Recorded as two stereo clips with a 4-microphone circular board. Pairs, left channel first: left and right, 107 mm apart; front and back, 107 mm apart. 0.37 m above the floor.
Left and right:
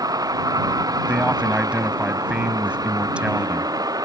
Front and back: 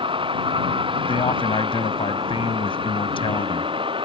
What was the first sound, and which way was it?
A vehicle, 145° right.